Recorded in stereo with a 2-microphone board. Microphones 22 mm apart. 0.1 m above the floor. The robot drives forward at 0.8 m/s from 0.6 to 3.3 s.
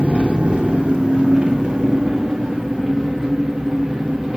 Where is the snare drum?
No snare drum in this recording.